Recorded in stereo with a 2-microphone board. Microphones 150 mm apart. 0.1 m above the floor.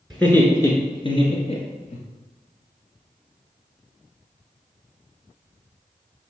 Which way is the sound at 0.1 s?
5° left (ahead or behind).